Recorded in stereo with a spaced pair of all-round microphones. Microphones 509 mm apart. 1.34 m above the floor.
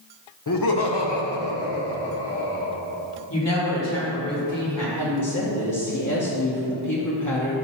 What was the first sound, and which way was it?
Laughter, 35° left (ahead or behind).